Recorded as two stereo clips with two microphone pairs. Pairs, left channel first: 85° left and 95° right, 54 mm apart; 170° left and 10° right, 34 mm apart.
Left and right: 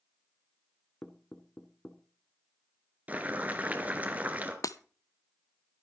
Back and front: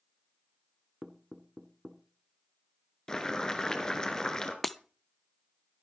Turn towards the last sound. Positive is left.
turn(degrees=85)